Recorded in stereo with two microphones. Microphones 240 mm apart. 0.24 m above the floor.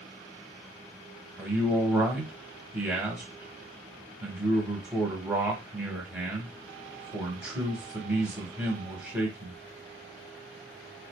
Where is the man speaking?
5° right (ahead or behind), 1.0 m.